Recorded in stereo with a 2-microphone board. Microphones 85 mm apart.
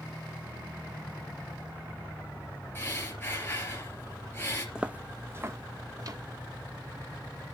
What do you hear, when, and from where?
2.8 s breathing: 25° left (ahead or behind), 3 m
4.8 s footsteps: 10° right (ahead or behind), 0.7 m; by 6.2 s 50° right (ahead or behind), 1.1 m